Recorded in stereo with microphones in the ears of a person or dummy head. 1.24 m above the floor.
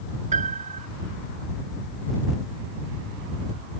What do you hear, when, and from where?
0.3 s a piano: 30° right (ahead or behind)